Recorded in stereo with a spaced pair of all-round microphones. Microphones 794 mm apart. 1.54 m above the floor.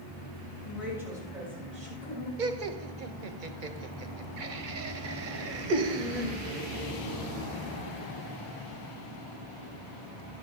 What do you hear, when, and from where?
0.6 s a woman speaking: centre (ahead or behind), 7.5 m; by 2.3 s 15° right (ahead or behind), 7.5 m
2.4 s laughter: 80° right, 1.1 m